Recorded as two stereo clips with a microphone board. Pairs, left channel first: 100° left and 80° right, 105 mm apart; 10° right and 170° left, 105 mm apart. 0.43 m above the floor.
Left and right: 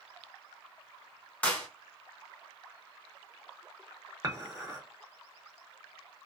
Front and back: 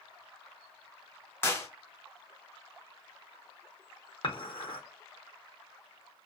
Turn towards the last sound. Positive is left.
turn(degrees=-25)